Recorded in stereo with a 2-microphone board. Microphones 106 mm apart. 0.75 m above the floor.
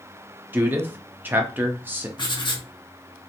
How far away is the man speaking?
About 0.5 m.